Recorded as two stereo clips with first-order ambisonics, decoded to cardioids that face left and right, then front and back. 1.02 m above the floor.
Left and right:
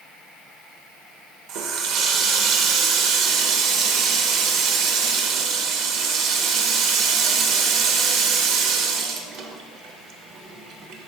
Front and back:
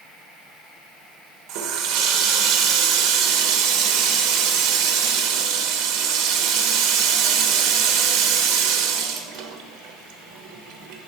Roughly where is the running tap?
Behind right.